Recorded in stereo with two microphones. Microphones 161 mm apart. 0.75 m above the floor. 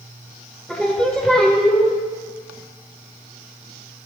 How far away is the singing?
About 1.5 m.